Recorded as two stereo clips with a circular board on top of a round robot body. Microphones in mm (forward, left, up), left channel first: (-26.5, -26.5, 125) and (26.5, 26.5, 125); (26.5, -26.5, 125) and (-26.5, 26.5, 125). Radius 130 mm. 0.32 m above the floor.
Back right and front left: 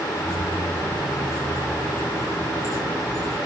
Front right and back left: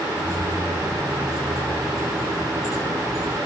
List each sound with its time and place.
0.1 s keys jangling: 95° right, 4 m